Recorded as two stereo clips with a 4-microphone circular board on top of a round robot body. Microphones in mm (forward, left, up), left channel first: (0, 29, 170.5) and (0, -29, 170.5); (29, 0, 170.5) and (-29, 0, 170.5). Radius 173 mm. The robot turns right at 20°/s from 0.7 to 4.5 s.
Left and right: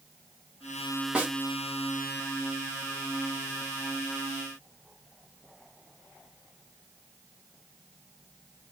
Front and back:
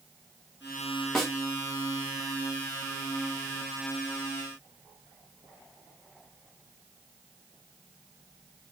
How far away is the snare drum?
About 1.3 m.